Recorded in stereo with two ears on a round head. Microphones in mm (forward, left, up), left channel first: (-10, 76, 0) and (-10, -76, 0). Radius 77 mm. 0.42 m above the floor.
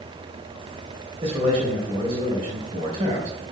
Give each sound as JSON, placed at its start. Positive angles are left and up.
{"t": 1.2, "sound": "a man speaking", "side_deg": -35, "distance_m": 2.5}